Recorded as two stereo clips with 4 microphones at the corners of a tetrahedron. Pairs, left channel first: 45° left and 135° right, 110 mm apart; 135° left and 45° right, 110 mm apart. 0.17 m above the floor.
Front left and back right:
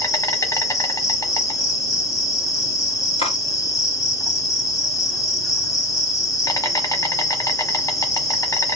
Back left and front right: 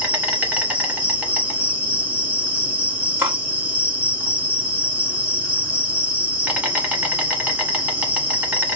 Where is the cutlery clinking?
25° left, 1.8 m.